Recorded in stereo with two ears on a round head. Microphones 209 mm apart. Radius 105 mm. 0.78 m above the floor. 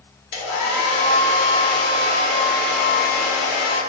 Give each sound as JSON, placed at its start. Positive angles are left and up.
{"t": 0.3, "sound": "a hair dryer", "side_deg": 55, "distance_m": 1.0}